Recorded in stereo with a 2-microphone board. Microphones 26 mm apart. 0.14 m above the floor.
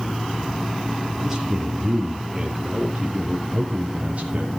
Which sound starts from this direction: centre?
A man speaking, at 1.2 s.